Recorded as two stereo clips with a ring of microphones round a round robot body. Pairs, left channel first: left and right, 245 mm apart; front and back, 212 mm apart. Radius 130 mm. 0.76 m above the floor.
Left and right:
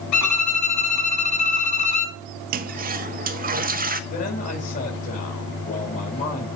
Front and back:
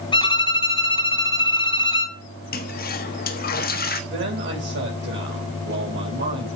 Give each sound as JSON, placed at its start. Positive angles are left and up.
{"t": 0.1, "sound": "a violin", "azimuth_deg": 70, "distance_m": 2.0}
{"t": 2.5, "sound": "a toilet flushing", "azimuth_deg": -40, "distance_m": 1.4}
{"t": 4.1, "sound": "a man speaking", "azimuth_deg": 145, "distance_m": 5.0}